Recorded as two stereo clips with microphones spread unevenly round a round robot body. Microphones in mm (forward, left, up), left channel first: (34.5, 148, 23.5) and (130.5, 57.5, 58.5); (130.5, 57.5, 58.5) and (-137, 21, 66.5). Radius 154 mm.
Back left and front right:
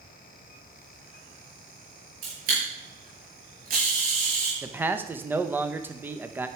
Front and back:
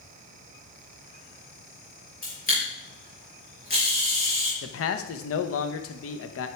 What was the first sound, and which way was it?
A camera shutter, 55° right.